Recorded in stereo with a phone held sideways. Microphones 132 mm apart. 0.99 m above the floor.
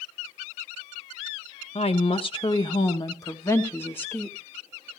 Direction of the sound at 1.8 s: 50° left (ahead or behind).